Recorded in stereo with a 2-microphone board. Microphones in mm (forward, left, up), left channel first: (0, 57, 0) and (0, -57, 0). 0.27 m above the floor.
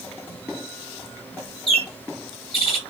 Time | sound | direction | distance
1.7 | a bird | 5° left (ahead or behind) | 1.0 m